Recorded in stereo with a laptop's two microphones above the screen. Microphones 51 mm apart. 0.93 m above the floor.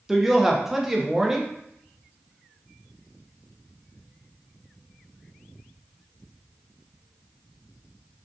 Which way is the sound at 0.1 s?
5° right (ahead or behind).